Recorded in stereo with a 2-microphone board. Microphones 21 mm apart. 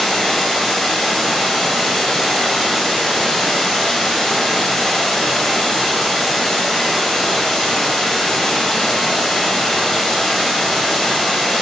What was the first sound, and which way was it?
Running water, 30° left (ahead or behind).